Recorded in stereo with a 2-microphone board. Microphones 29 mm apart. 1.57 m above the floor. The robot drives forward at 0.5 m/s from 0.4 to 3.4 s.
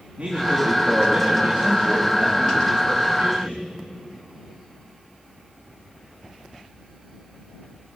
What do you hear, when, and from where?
0.2 s a man speaking: 55° right (ahead or behind), 4 m; by 3.7 s 75° right (ahead or behind), 3.5 m